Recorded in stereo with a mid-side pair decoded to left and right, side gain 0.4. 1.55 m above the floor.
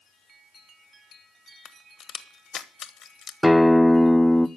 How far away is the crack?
About 1.3 m.